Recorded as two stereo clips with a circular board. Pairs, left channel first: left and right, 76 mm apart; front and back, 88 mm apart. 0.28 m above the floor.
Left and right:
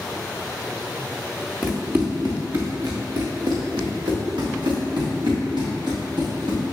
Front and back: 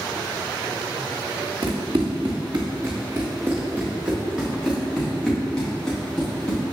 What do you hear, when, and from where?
1.6 s running footsteps: 160° right, 1.8 m; by 6.7 s 80° right, 4 m